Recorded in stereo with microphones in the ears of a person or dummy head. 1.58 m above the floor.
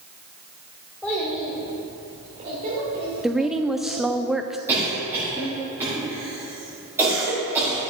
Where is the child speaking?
10° left (ahead or behind), 2.5 m; by 4.2 s 60° right (ahead or behind), 4 m.